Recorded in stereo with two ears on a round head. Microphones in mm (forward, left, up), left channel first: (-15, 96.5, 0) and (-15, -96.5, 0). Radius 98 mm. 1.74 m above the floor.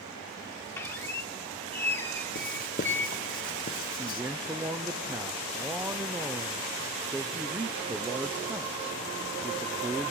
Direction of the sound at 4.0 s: 10° right (ahead or behind).